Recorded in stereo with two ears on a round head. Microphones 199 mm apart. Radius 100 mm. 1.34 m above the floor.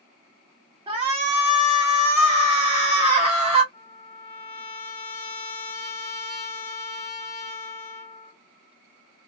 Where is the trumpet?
20° left (ahead or behind), 1.2 m.